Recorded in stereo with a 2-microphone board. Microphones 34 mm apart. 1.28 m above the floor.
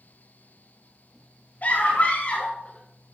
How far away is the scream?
About 2.5 m.